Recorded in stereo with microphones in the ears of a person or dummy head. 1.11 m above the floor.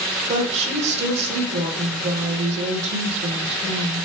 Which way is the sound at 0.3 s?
40° right (ahead or behind).